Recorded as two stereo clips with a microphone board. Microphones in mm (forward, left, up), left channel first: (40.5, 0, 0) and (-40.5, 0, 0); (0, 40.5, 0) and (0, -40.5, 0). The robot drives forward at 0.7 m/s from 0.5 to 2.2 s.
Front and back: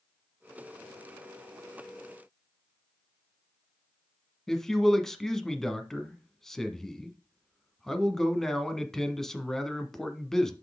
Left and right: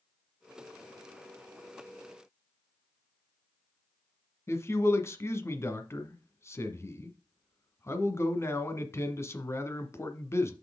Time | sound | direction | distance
4.5 | a man speaking | 80° left | 1.2 m